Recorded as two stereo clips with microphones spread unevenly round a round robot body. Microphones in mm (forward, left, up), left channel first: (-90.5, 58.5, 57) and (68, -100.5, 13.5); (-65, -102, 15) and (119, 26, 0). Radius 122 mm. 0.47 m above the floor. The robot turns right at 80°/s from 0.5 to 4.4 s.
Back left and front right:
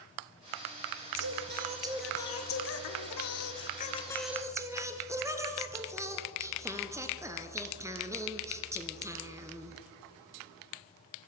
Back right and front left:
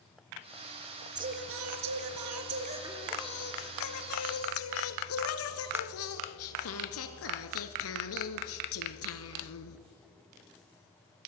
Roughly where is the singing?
Ahead right.